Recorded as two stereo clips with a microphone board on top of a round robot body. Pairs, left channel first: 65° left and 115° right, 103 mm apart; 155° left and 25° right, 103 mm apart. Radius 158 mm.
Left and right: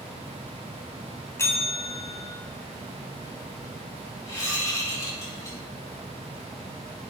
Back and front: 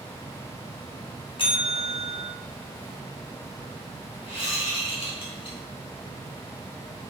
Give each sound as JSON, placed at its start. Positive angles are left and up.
{"t": 1.4, "sound": "a bell", "azimuth_deg": 130, "distance_m": 1.6}
{"t": 4.3, "sound": "a whoosh", "azimuth_deg": 125, "distance_m": 3.0}